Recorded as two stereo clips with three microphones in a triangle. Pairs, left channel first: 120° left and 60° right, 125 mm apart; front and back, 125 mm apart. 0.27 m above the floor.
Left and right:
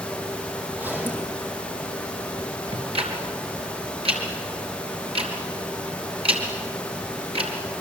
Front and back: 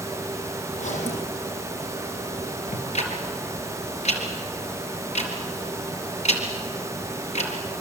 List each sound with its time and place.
0.7 s a zipper: 15° left, 6.5 m
2.7 s ticking: 20° right, 4 m